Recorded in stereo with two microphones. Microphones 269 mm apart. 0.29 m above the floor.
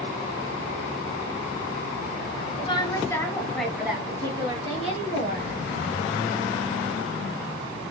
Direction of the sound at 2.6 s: 20° left (ahead or behind).